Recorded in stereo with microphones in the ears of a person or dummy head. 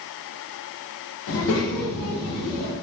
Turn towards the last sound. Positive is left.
turn(degrees=80)